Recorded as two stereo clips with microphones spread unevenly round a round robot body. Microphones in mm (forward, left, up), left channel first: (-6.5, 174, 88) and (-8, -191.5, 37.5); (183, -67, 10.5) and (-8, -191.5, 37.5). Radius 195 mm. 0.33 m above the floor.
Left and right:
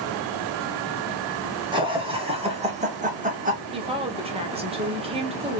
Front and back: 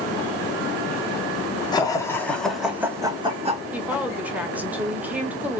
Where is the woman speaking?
55° right, 1.0 m.